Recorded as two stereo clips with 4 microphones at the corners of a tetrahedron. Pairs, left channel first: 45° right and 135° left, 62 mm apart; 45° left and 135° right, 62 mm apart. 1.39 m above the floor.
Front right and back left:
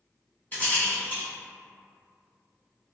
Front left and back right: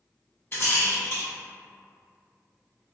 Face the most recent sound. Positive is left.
turn(degrees=5)